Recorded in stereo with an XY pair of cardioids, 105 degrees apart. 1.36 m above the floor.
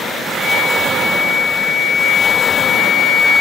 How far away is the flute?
About 1.8 m.